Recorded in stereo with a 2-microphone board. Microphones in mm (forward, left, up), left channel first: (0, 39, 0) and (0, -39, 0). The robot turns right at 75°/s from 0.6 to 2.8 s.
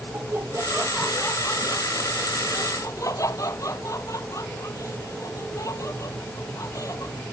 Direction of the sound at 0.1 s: 30° right (ahead or behind).